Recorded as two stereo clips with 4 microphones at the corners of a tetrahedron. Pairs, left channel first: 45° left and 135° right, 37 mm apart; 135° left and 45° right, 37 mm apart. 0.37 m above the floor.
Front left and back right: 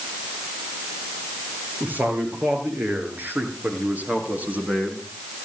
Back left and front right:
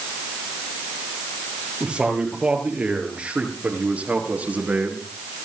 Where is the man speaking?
105° right, 9 m; by 5.0 s 80° right, 5 m.